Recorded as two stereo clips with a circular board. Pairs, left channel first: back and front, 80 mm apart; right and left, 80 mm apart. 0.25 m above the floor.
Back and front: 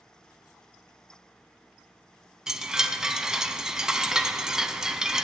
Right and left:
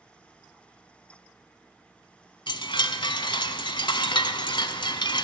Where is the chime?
85° right, 0.6 m.